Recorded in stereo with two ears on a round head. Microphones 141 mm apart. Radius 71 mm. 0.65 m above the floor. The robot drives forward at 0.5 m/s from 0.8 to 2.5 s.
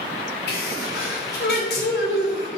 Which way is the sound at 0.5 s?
70° left (ahead or behind).